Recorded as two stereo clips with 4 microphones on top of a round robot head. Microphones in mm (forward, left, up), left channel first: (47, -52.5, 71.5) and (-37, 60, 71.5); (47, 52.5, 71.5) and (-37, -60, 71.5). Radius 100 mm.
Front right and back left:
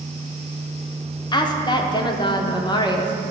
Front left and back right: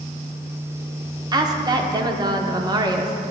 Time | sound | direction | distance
1.3 | a woman speaking | 85° right | 0.9 m